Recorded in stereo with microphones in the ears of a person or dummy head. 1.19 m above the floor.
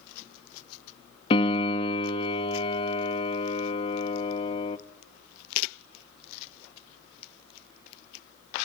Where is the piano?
30° left (ahead or behind), 1.0 m.